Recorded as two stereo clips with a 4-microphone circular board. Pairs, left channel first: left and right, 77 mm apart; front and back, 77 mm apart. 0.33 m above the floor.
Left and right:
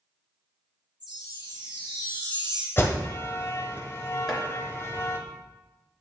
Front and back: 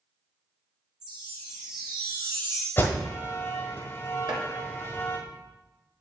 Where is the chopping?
175° left, 2 m.